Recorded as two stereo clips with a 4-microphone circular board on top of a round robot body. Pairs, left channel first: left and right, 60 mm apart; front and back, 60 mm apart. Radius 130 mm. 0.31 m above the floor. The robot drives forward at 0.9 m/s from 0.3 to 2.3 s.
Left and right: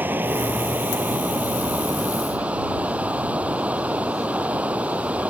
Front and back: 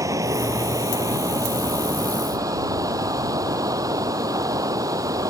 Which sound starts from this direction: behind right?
Running water, at 0.0 s.